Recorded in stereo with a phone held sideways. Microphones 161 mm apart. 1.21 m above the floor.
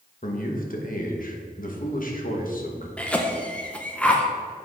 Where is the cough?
10° left (ahead or behind), 0.9 m.